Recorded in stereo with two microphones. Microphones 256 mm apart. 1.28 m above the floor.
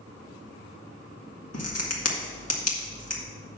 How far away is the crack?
About 1.7 m.